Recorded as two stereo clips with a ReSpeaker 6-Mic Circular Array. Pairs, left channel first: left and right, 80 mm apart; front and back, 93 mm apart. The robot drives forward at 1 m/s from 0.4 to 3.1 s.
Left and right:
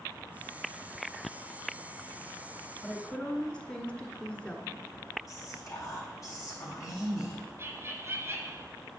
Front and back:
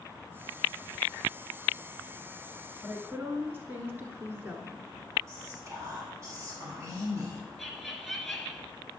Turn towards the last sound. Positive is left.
turn(degrees=-90)